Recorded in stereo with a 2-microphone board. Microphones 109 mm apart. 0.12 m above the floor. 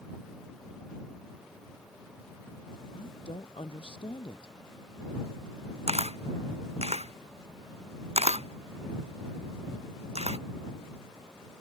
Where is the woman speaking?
55° left (ahead or behind).